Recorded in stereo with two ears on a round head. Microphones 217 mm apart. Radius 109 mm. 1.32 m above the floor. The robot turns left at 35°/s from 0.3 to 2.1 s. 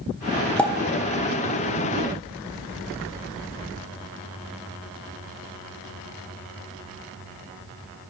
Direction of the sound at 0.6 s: 5° left (ahead or behind).